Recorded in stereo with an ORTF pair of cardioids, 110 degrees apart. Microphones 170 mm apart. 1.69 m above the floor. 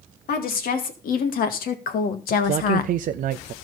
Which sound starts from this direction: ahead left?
A woman speaking, at 0.3 s.